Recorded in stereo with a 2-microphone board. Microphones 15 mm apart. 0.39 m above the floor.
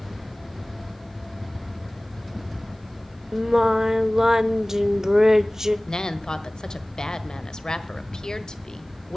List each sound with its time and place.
3.3 s singing: 30° right (ahead or behind), 0.7 m
5.9 s a woman speaking: 50° left (ahead or behind), 1.4 m